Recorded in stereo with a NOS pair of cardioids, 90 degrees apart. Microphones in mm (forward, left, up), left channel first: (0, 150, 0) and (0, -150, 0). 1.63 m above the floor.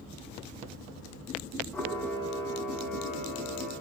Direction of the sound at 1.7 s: 5° left.